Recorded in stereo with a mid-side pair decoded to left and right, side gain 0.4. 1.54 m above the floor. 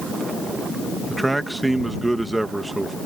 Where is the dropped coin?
I don't hear a dropped coin.